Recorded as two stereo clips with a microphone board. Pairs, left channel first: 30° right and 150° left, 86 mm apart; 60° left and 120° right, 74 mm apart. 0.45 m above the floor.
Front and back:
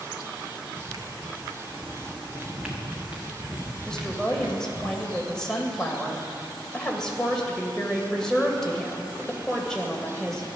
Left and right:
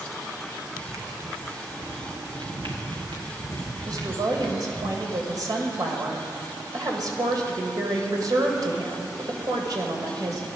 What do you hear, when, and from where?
0.7 s footsteps: 175° right, 1.1 m; by 3.4 s 140° right, 3 m
2.4 s footsteps: 120° right, 2 m; by 4.9 s 155° right, 4.5 m
3.9 s a woman speaking: 110° right, 2 m